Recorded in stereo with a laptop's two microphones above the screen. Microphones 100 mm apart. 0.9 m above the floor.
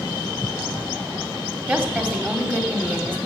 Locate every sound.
1.7 s a woman speaking: 15° right (ahead or behind), 2.5 m